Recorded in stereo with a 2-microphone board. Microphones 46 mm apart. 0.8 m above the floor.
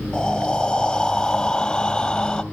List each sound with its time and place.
0.1 s breathing: 15° left (ahead or behind), 0.8 m